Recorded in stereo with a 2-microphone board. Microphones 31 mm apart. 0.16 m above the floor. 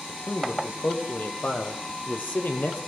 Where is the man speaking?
45° left (ahead or behind), 5.5 m; by 2.9 s 70° left (ahead or behind), 4 m.